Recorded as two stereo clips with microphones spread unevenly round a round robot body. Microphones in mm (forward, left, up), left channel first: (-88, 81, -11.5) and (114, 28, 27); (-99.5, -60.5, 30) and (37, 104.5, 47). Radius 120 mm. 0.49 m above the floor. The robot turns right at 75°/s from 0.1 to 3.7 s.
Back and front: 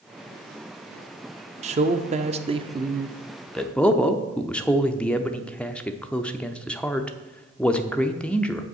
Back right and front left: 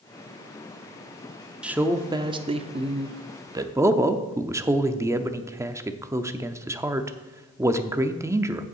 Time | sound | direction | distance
1.6 | a man speaking | 40° right | 0.7 m